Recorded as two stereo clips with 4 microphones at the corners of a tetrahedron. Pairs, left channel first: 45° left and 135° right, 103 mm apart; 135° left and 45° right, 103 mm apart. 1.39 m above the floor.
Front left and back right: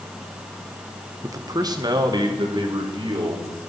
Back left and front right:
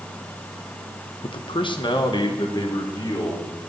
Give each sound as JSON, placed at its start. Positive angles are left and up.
{"t": 1.2, "sound": "a man speaking", "azimuth_deg": 165, "distance_m": 0.8}